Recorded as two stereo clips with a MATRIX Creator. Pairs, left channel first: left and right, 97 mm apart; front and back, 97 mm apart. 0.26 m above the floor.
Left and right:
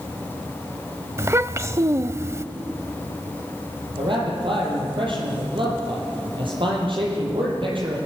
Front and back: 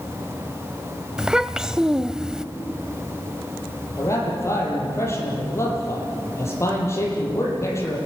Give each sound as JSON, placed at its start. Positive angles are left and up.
{"t": 1.2, "sound": "a child speaking", "azimuth_deg": -105, "distance_m": 0.5}
{"t": 4.0, "sound": "a man speaking", "azimuth_deg": -60, "distance_m": 8.5}